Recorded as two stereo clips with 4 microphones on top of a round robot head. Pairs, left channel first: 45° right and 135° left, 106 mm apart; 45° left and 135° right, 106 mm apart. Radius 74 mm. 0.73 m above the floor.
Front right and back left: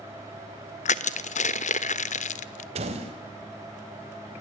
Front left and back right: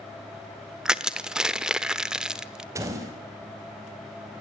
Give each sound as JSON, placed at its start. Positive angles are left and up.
{"t": 0.8, "sound": "crushing", "azimuth_deg": -50, "distance_m": 1.1}
{"t": 2.8, "sound": "a door slam", "azimuth_deg": 160, "distance_m": 4.0}